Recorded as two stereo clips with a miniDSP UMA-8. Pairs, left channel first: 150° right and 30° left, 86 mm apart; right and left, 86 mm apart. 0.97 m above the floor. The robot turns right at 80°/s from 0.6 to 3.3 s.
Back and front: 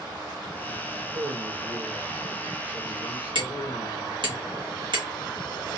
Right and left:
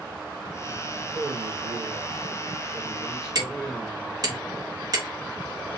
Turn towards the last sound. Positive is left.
turn(degrees=45)